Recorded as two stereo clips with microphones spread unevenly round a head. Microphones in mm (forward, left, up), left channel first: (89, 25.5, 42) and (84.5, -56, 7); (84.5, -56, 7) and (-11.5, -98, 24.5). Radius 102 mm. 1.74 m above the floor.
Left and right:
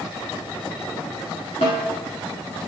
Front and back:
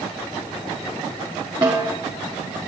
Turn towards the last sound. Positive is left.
turn(degrees=130)